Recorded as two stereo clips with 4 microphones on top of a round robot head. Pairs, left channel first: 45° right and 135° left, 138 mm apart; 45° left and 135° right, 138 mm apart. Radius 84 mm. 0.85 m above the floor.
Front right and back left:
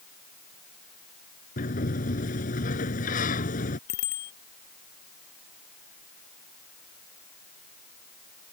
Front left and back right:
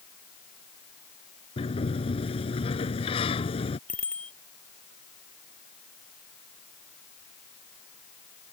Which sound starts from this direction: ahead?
A sliding door, at 1.6 s.